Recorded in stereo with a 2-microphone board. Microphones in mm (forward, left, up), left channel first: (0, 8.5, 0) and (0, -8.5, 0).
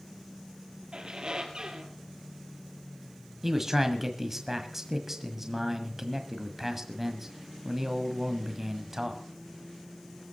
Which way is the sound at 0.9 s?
50° right (ahead or behind).